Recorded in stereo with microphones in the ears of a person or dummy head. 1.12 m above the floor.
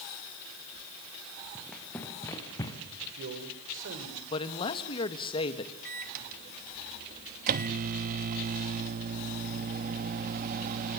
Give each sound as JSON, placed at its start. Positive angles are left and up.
{"t": 1.6, "sound": "running footsteps", "side_deg": 10, "distance_m": 4.5}
{"t": 3.0, "sound": "a man speaking", "side_deg": -65, "distance_m": 5.5}
{"t": 4.3, "sound": "a man speaking", "side_deg": 30, "distance_m": 1.7}
{"t": 5.8, "sound": "a microwave", "side_deg": -50, "distance_m": 1.0}